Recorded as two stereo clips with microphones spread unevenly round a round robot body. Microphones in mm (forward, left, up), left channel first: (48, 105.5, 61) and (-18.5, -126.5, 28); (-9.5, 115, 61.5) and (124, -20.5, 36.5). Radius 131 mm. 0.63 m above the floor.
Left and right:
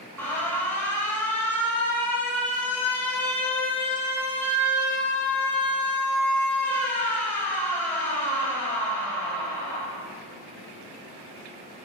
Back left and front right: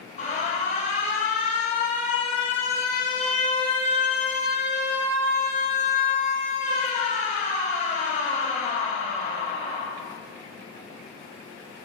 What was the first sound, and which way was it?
An alarm, 165° left.